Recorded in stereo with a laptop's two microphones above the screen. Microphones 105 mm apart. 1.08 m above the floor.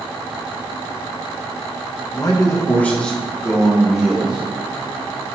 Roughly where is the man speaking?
Left.